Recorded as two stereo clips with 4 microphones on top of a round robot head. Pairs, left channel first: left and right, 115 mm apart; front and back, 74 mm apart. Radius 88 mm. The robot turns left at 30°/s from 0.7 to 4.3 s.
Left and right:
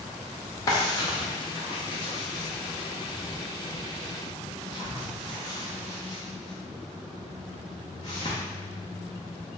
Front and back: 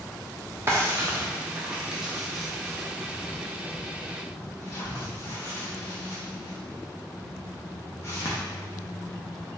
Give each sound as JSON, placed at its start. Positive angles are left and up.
{"t": 0.7, "sound": "a drawer", "azimuth_deg": 140, "distance_m": 0.6}